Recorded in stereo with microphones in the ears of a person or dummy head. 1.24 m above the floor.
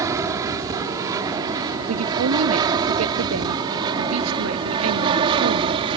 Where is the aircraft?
15° right (ahead or behind); by 6.0 s 25° right (ahead or behind).